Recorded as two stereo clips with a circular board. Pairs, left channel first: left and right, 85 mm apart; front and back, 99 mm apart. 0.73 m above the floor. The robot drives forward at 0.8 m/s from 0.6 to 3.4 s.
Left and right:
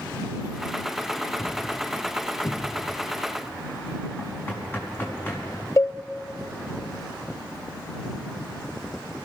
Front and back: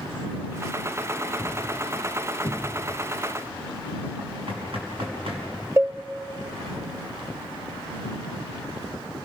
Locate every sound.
1.4 s a thud: 130° left, 3.5 m; by 3.0 s 145° left, 4.5 m
4.2 s knocking: 155° left, 5 m
5.8 s a cowbell: 125° left, 0.5 m